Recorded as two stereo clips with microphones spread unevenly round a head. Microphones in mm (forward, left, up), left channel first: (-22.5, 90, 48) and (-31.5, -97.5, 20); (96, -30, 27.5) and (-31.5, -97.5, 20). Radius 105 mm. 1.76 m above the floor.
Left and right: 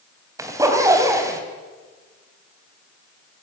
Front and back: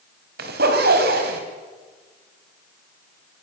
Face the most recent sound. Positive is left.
turn(degrees=-170)